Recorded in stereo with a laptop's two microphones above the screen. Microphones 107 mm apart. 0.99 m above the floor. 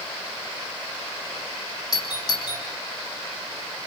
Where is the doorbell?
40° left (ahead or behind), 3.5 m.